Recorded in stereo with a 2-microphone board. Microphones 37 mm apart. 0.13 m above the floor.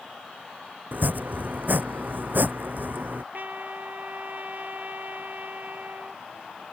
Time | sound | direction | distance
0.9 | chopping | 55° right (ahead or behind) | ?
3.3 | a trumpet | 55° right (ahead or behind) | ?